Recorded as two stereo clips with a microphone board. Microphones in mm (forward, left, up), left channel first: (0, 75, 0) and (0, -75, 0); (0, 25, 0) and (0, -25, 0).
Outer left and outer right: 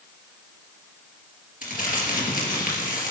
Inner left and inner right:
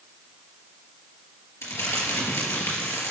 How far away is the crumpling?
About 3.5 m.